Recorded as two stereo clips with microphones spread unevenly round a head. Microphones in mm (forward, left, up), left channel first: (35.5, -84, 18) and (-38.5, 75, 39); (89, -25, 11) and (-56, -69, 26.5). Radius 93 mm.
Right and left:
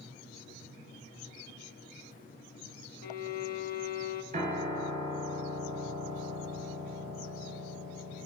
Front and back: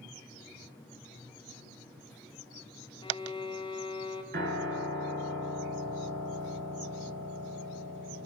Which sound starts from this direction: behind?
A piano, at 4.3 s.